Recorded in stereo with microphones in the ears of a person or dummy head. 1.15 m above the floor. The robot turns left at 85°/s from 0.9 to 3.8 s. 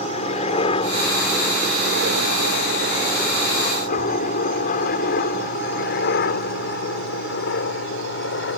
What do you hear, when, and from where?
0.0 s a helicopter: 45° left (ahead or behind); by 8.6 s 55° left (ahead or behind)